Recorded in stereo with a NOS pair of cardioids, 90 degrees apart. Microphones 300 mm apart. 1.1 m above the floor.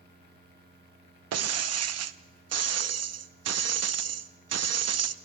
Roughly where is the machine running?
Ahead right.